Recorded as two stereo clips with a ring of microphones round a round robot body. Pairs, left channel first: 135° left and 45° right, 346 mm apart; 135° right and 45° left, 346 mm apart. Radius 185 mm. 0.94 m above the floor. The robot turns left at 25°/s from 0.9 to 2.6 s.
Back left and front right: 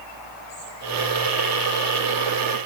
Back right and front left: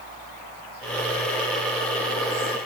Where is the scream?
I don't hear a scream.